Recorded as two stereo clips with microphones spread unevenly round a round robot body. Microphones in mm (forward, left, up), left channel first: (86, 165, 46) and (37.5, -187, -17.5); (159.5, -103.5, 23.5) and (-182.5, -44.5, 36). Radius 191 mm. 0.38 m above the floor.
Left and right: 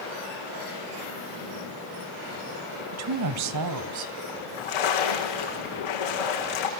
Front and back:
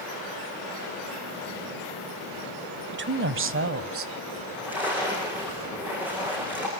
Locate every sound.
2.9 s a woman speaking: 130° right, 1.4 m; by 4.1 s 135° right, 2.5 m
4.3 s a splash: 85° left, 8 m